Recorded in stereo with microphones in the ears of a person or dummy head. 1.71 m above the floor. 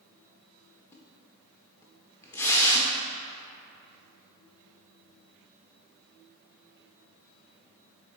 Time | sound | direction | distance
0.9 | a splash | 15° left (ahead or behind) | 0.9 m